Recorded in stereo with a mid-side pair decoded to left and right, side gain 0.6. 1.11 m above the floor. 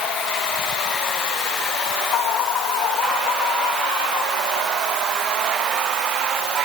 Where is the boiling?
I don't hear boiling.